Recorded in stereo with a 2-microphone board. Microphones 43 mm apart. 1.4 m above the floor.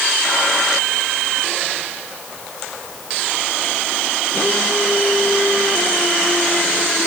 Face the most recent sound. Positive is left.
No sound to turn to.